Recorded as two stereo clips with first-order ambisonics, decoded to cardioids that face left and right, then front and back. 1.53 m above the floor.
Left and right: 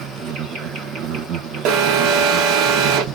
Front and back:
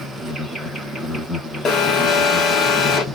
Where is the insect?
90° right, 1.9 m.